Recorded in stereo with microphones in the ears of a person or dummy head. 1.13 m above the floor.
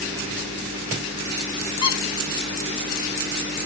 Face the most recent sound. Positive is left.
turn(degrees=30)  # may be behind; listen again after turning